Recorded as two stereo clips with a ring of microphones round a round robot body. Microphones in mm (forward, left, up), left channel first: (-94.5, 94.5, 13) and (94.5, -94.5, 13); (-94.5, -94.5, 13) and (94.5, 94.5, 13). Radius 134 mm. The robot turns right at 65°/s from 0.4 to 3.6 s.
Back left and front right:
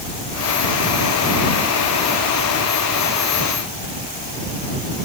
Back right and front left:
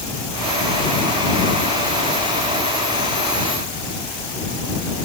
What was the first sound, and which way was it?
Only background noise.